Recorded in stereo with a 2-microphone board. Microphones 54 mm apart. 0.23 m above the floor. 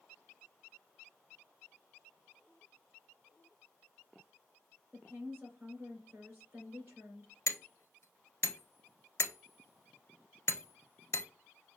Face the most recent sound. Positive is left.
turn(degrees=55)  # may be behind; listen again after turning